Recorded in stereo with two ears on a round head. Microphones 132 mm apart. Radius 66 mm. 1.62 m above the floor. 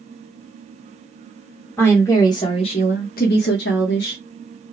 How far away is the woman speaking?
About 1.0 m.